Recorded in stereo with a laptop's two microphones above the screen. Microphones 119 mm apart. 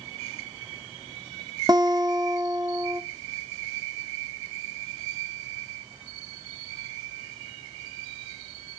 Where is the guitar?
30° right (ahead or behind), 0.7 m.